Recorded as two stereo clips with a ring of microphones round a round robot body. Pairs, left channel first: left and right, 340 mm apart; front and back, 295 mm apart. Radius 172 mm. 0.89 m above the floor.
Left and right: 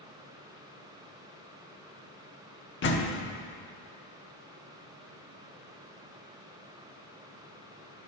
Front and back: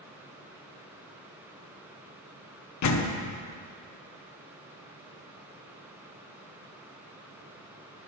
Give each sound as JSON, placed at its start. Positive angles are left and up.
{"t": 2.8, "sound": "a door slam", "azimuth_deg": 30, "distance_m": 1.0}